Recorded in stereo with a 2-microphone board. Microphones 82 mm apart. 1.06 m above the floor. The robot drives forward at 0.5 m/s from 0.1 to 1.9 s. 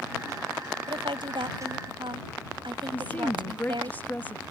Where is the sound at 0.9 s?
85° right; by 3.9 s 80° right.